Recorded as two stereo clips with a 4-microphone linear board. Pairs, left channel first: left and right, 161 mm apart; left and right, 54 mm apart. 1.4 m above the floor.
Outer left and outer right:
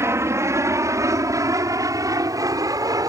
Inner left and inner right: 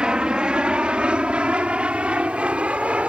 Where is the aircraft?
15° right (ahead or behind); by 3.1 s 20° right (ahead or behind).